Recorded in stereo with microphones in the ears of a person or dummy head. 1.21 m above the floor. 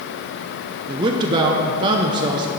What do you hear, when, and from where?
0.9 s a man speaking: 25° right (ahead or behind), 0.5 m